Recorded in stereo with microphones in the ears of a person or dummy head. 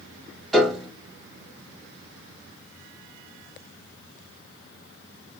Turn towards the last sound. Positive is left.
turn(degrees=0)  # may be behind; listen again after turning